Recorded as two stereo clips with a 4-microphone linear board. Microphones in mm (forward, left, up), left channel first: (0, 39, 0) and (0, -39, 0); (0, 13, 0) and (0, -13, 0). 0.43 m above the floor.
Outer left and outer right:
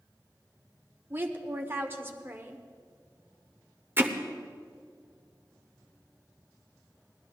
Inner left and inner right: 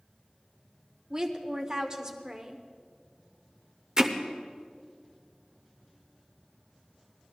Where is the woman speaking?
30° right (ahead or behind), 1.1 m.